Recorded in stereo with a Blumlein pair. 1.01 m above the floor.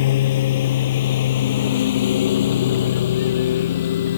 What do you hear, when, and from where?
0.0 s a lawn mower: 55° left; by 4.2 s 60° left